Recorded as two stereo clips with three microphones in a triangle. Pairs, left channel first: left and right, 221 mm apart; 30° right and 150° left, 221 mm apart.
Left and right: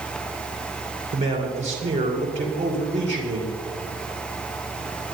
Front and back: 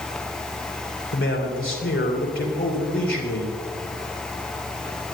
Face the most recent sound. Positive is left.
turn(degrees=-35)